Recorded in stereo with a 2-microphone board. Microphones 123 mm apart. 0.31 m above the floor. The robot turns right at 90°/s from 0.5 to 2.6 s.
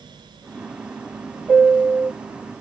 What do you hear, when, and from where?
1.5 s a piano: 175° left, 1.7 m; by 2.1 s 130° right, 1.7 m